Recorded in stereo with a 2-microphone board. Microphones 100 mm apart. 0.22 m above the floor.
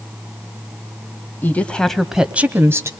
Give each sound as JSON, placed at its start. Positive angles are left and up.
{"t": 1.4, "sound": "a woman speaking", "side_deg": 20, "distance_m": 1.0}